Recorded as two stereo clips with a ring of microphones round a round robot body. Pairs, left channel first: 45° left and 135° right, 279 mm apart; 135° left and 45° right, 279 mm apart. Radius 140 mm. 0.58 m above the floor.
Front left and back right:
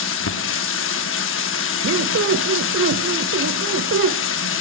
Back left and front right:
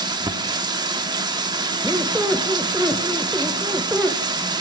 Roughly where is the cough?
No cough in this recording.